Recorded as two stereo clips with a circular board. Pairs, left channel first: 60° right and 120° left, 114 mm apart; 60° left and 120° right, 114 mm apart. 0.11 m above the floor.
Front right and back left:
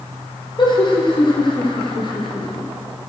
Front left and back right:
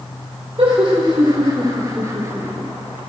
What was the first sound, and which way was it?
Laughter, 90° right.